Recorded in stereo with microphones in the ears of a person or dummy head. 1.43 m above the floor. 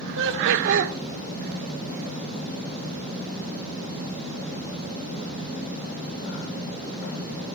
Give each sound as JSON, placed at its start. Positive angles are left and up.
{"t": 0.2, "sound": "laughter", "side_deg": -70, "distance_m": 1.0}